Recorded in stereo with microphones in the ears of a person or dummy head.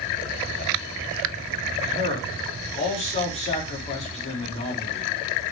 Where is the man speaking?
30° left (ahead or behind), 3.5 m.